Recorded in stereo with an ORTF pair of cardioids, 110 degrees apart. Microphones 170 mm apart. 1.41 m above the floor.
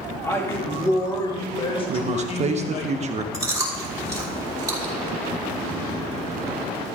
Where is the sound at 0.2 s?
15° left, 3 m; by 2.9 s 50° left, 2.0 m.